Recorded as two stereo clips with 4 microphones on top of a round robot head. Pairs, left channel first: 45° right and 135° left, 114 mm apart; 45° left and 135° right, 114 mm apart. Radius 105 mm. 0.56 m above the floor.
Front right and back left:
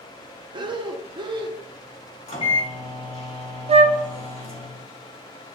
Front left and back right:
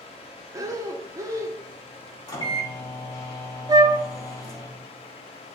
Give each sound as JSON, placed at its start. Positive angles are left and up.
{"t": 0.5, "sound": "breathing", "azimuth_deg": 170, "distance_m": 1.2}
{"t": 2.3, "sound": "a microwave", "azimuth_deg": -10, "distance_m": 4.0}
{"t": 3.7, "sound": "a flute", "azimuth_deg": 165, "distance_m": 0.5}